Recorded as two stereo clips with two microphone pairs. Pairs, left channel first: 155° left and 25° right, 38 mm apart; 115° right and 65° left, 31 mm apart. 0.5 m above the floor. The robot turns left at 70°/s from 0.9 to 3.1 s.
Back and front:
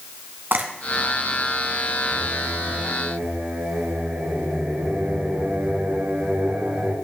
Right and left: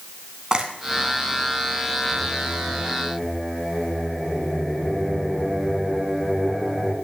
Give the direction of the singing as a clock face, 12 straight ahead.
10 o'clock.